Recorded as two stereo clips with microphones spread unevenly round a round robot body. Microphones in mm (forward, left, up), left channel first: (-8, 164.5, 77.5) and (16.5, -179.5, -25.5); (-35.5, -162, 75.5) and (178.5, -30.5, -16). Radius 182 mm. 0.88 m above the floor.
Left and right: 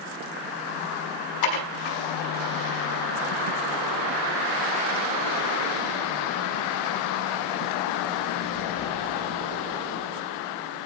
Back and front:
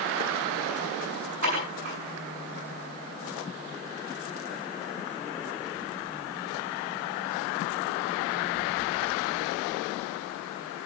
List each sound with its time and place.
1.4 s dishes clattering: 95° left, 6.5 m